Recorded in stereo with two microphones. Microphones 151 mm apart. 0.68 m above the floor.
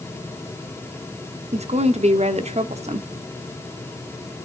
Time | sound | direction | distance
1.5 | a woman speaking | 45° right (ahead or behind) | 1.2 m